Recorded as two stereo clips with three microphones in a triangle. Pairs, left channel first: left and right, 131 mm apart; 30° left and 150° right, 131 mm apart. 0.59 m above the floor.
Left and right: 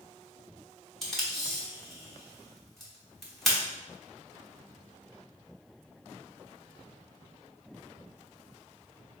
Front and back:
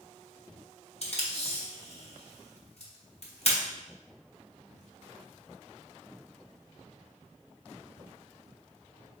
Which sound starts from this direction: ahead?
Tape being pulled, at 1.0 s.